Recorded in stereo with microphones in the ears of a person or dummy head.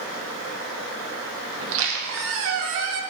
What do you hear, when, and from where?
1.6 s a squeak: 70° right (ahead or behind), 0.5 m